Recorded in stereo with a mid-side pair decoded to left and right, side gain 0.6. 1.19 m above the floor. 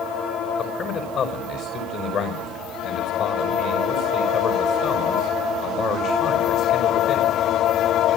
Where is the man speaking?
55° left, 5.5 m.